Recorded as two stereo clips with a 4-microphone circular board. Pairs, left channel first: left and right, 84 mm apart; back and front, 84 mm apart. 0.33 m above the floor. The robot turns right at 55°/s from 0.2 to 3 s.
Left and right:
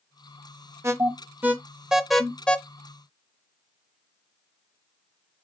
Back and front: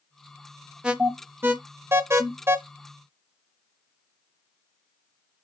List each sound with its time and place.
0.8 s an alarm: 70° right, 0.6 m; by 2.6 s 25° left, 0.6 m